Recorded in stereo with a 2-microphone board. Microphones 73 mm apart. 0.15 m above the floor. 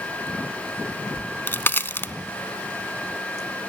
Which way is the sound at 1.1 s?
30° left (ahead or behind).